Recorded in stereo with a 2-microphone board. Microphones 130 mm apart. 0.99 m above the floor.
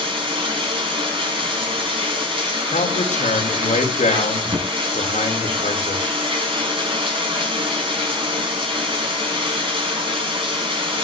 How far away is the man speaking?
About 3 m.